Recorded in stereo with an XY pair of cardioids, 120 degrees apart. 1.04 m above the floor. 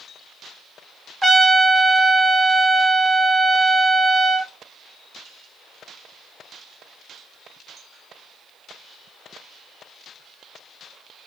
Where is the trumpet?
10° right, 1.3 m.